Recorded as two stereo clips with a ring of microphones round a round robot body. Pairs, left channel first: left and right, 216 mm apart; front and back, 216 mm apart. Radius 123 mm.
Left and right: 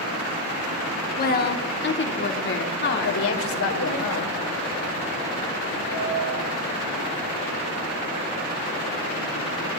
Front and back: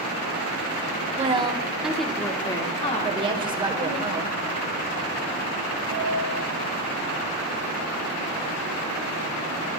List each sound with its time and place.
1.2 s a woman speaking: 125° left, 1.5 m; by 4.0 s 50° left, 2.5 m
3.0 s a woman speaking: 110° left, 1.9 m
5.9 s a piano: 125° left, 6.5 m